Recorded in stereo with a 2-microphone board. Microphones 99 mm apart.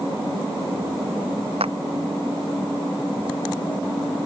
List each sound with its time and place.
1.6 s a clap: 80° right